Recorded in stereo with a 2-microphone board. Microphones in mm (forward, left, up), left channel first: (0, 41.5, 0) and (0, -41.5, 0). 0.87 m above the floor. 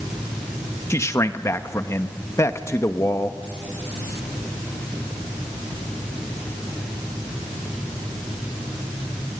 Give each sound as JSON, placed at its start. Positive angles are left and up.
{"t": 0.9, "sound": "a man speaking", "side_deg": 35, "distance_m": 1.0}